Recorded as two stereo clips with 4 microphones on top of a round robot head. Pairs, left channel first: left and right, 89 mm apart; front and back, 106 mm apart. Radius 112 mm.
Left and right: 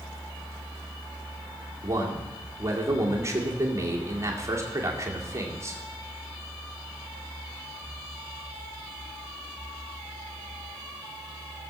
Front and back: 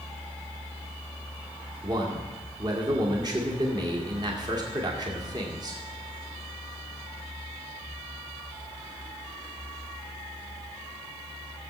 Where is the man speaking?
140° right, 2 m.